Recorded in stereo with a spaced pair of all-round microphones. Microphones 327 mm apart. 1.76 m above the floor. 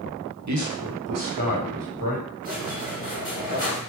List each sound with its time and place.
0.5 s a man speaking: 55° right (ahead or behind), 0.5 m; by 2.2 s 75° right (ahead or behind), 1.4 m
2.4 s a squeak: 25° right (ahead or behind), 1.4 m